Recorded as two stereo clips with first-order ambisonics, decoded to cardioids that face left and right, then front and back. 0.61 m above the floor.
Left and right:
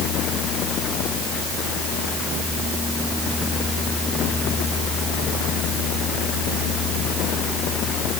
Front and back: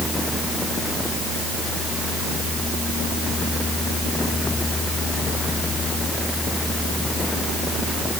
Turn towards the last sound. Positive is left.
No sound to turn to.